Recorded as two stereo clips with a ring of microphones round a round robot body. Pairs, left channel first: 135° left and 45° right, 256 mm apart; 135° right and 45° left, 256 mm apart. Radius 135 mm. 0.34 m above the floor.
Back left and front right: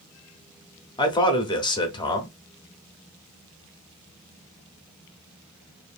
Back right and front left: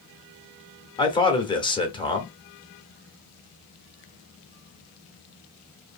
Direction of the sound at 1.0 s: Straight behind.